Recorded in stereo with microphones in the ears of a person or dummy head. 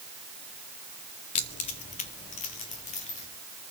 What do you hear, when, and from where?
1.4 s keys jangling: 20° left (ahead or behind), 0.7 m; by 3.3 s 30° left (ahead or behind), 3 m